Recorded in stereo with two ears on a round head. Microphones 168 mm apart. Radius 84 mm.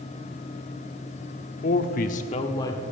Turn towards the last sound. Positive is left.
turn(degrees=15)  # may be behind; listen again after turning